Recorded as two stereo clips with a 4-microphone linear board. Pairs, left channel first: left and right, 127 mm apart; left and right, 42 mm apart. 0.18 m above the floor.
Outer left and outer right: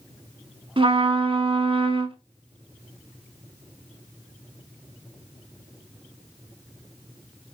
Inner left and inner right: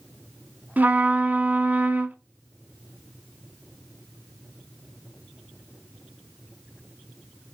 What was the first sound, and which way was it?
A trumpet, 45° right (ahead or behind).